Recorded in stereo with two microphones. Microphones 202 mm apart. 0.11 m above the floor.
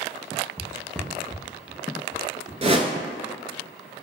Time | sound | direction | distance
0.6 | footsteps | 15° left (ahead or behind) | 1.2 m
2.6 | a whoosh | 30° right (ahead or behind) | 0.5 m